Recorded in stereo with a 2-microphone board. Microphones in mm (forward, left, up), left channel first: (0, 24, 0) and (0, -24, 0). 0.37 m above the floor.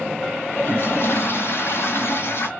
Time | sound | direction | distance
0.5 | a toilet flushing | 60° left (ahead or behind) | 1.7 m